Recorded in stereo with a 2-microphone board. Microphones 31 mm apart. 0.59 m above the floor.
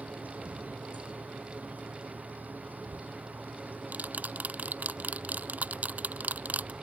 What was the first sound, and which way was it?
An insect, 70° right (ahead or behind).